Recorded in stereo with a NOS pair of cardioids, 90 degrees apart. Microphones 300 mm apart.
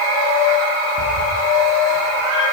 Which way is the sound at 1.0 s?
60° right.